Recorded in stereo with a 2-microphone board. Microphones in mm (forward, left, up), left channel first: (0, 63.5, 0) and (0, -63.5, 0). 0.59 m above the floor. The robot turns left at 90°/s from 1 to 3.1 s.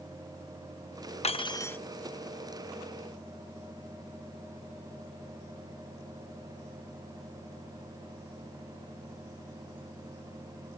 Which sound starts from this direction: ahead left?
Cutlery clinking, at 1.2 s.